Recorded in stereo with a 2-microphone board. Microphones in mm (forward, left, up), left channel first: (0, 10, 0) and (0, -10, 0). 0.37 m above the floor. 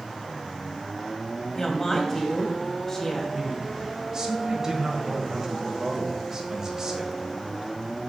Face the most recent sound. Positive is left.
turn(degrees=-25)  # may be behind; listen again after turning